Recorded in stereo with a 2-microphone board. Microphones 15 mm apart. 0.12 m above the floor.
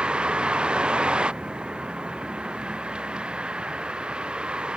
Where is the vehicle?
85° right; by 4.8 s 70° right (ahead or behind).